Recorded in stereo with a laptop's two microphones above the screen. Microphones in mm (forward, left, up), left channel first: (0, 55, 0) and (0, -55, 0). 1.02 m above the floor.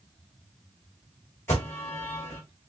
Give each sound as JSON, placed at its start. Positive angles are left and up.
{"t": 1.5, "sound": "an alarm", "side_deg": 25, "distance_m": 3.0}